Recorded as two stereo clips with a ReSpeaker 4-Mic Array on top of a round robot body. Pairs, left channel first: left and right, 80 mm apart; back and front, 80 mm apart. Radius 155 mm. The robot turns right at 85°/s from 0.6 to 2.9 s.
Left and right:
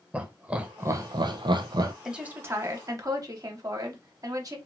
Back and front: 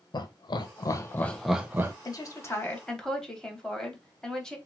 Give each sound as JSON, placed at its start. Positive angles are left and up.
{"t": 0.1, "sound": "laughter", "azimuth_deg": -160, "distance_m": 0.6}
{"t": 2.0, "sound": "a woman speaking", "azimuth_deg": -170, "distance_m": 1.2}